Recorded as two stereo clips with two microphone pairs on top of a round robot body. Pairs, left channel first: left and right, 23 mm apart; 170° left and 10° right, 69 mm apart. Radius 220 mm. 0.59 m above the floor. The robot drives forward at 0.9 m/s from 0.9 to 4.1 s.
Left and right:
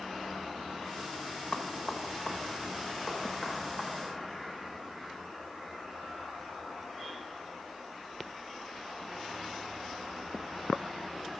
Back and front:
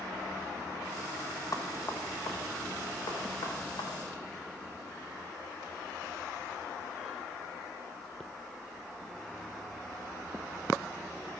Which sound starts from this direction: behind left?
Knocking, at 1.5 s.